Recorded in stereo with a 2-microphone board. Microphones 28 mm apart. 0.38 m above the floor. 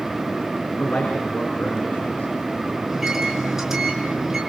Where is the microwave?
15° right (ahead or behind), 5.5 m.